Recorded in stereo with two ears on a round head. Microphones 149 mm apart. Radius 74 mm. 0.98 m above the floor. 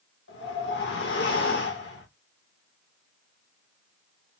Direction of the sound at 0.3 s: 70° left (ahead or behind).